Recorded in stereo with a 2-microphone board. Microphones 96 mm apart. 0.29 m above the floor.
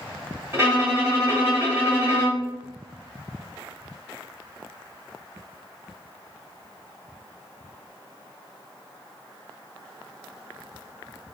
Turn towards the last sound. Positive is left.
turn(degrees=-25)  # may be behind; listen again after turning